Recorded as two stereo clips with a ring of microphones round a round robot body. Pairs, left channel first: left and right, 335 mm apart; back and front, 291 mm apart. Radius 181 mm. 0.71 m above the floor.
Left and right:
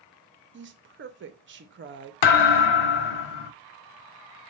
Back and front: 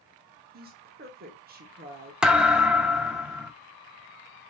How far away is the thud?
About 0.6 m.